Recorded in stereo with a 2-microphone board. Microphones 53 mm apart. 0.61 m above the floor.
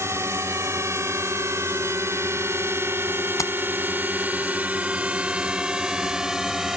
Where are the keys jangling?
75° left (ahead or behind).